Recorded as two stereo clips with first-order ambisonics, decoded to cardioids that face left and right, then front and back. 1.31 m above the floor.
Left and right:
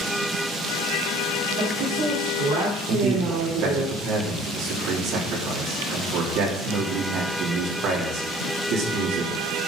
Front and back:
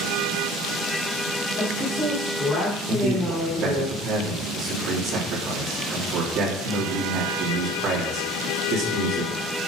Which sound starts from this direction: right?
A woman speaking, at 1.6 s.